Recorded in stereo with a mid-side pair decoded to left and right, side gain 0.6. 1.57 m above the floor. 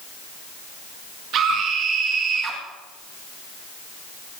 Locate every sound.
1.3 s a scream: 55° right, 2.5 m; by 2.6 s 35° right, 2 m